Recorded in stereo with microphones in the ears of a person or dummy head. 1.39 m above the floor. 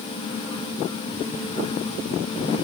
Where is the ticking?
No ticking in this recording.